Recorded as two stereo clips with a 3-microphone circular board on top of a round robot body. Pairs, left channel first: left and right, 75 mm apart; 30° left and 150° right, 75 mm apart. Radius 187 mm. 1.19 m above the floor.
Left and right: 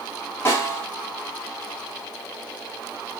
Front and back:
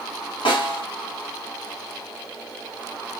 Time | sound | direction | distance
0.5 | a snare drum | 30° left | 2 m